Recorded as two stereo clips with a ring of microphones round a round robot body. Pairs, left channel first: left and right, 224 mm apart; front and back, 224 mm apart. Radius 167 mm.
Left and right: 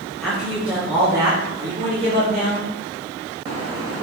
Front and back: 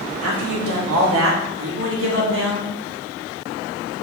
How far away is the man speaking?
About 2.5 m.